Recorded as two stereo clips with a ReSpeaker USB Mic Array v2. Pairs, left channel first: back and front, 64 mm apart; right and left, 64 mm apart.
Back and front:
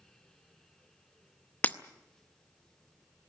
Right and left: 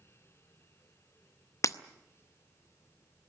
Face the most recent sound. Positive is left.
turn(degrees=-115)